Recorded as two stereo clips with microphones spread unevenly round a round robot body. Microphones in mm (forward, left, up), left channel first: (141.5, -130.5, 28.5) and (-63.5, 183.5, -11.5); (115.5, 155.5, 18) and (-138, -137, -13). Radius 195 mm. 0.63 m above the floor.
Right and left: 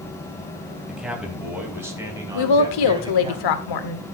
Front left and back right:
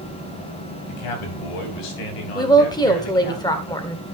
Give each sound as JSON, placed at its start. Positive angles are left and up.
{"t": 0.9, "sound": "a man speaking", "azimuth_deg": 35, "distance_m": 4.0}
{"t": 2.4, "sound": "a woman speaking", "azimuth_deg": -30, "distance_m": 2.0}